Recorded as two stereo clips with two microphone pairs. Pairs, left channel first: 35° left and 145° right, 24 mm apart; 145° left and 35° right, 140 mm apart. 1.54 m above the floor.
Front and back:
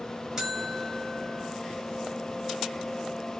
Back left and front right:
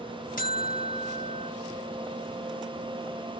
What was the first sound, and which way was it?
A buzzer, 145° left.